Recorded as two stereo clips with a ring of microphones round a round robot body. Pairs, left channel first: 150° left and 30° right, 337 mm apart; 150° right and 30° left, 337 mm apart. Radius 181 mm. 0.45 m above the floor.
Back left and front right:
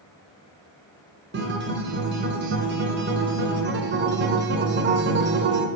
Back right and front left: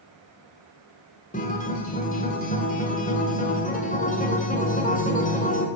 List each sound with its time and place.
1.3 s a guitar: 85° right, 1.9 m